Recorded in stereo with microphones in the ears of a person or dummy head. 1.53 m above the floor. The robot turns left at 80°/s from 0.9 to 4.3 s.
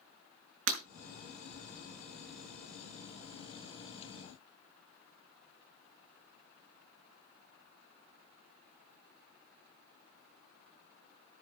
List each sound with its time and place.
0.7 s breaking glass: 75° right (ahead or behind), 5 m